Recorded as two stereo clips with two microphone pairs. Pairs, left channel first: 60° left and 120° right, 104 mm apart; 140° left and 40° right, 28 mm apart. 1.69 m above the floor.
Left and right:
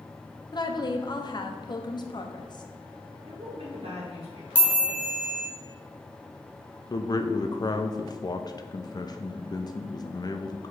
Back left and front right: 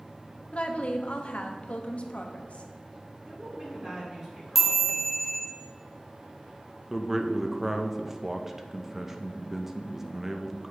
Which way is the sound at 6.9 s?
30° left.